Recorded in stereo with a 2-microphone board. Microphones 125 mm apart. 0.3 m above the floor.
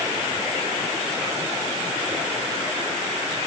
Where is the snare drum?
No snare drum in this recording.